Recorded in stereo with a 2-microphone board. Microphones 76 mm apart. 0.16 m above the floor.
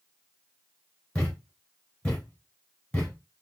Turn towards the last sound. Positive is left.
turn(degrees=15)  # may be behind; listen again after turning